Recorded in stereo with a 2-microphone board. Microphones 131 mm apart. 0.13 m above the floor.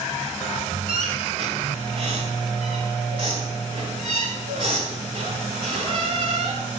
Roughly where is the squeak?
Right.